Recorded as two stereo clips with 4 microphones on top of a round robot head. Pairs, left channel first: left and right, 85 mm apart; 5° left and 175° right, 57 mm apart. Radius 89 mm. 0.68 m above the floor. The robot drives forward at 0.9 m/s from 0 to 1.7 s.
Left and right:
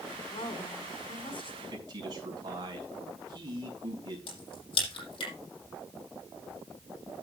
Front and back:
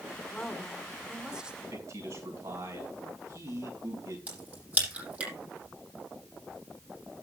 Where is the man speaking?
135° right, 5.5 m.